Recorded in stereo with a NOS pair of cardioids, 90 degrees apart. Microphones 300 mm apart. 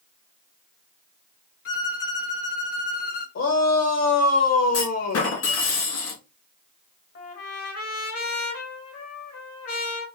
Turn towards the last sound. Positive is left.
turn(degrees=55)